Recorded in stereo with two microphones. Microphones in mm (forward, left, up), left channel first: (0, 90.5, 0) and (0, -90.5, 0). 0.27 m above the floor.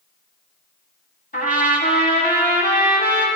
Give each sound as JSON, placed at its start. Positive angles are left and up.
{"t": 1.3, "sound": "a trumpet", "side_deg": 55, "distance_m": 1.4}